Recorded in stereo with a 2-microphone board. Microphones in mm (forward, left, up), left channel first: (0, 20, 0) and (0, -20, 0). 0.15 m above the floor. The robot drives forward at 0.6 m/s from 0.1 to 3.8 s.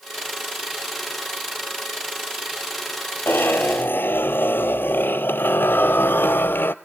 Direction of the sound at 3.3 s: 75° left (ahead or behind).